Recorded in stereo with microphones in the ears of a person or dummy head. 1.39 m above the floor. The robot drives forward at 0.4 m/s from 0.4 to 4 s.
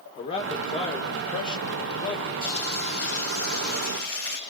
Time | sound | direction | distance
0.2 | a man speaking | 30° left (ahead or behind) | 2 m
2.4 | frying | 70° right (ahead or behind) | 7.5 m